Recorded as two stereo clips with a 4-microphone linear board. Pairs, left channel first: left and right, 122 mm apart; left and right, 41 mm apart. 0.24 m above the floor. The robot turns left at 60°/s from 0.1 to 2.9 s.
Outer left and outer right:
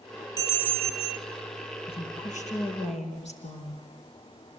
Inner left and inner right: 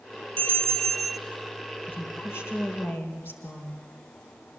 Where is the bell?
35° left, 0.9 m; by 1.2 s 15° right, 0.9 m.